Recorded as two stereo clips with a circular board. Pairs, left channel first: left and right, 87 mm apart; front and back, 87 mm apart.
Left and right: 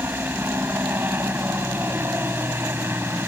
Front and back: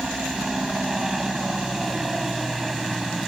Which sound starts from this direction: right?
A helicopter, at 0.0 s.